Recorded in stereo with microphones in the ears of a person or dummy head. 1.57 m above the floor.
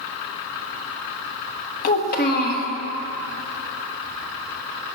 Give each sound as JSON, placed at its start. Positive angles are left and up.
{"t": 1.8, "sound": "a child speaking", "side_deg": 50, "distance_m": 1.3}